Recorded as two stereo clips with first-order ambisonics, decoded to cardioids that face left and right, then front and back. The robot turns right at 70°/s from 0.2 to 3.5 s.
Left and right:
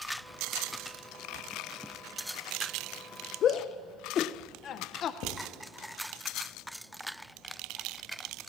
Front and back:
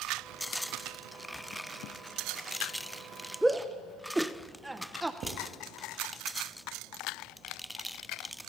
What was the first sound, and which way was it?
A shout, 95° left.